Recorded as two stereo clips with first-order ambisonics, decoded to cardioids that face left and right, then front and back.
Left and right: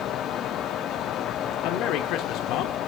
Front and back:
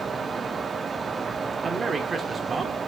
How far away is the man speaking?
About 1.2 m.